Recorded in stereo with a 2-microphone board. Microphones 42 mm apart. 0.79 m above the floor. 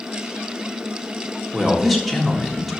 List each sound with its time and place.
1.5 s a man speaking: centre (ahead or behind), 1.0 m